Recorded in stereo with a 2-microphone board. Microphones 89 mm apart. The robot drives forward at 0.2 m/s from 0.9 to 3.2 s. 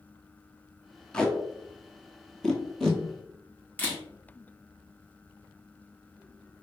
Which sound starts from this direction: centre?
Tape being pulled, at 1.1 s.